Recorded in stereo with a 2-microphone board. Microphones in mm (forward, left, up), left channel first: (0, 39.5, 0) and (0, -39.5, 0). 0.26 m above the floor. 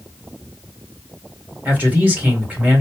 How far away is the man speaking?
About 1.6 m.